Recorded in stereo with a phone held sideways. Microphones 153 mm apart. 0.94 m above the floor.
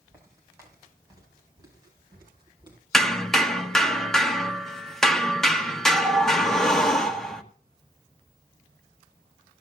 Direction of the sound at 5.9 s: 5° left (ahead or behind).